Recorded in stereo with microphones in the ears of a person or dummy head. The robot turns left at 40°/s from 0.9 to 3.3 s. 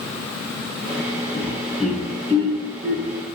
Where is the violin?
No violin in this recording.